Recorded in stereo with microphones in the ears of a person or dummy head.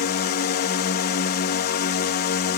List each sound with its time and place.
0.0 s a drone: 45° left (ahead or behind)